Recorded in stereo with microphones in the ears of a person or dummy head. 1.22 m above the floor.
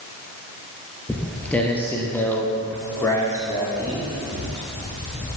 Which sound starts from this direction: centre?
Footsteps, at 1.1 s.